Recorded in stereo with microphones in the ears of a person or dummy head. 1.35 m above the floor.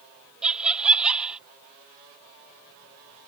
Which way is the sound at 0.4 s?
Centre (ahead or behind).